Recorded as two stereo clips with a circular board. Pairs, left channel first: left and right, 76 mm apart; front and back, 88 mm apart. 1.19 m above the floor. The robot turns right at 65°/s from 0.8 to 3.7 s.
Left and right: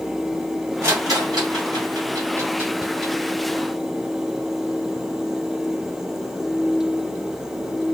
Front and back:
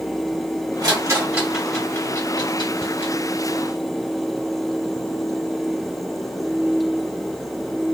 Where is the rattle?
140° right, 1.2 m; by 3.1 s 10° left, 1.2 m.